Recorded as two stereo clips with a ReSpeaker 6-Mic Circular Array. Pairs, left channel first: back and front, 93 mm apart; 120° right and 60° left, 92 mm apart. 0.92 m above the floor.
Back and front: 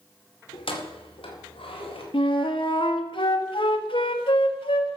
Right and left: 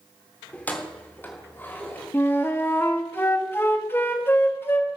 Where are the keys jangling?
165° left, 2.0 m; by 2.0 s 175° left, 3.5 m.